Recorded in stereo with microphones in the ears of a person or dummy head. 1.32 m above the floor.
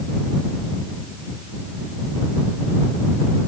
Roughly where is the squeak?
I don't hear a squeak.